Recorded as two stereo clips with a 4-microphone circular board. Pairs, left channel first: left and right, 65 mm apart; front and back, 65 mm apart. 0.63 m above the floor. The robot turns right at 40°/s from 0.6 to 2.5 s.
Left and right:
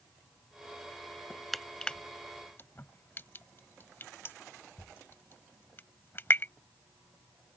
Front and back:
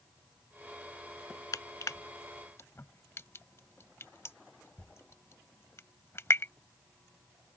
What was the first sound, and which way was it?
Crushing, straight ahead.